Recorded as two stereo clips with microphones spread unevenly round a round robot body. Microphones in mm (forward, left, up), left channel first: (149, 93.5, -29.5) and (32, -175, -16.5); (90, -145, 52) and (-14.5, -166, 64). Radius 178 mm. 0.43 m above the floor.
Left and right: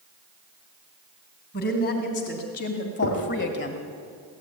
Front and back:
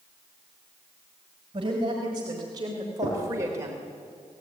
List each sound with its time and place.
1.5 s a woman speaking: 130° left, 3 m; by 3.8 s 120° left, 1.5 m
3.0 s knocking: 45° left, 6 m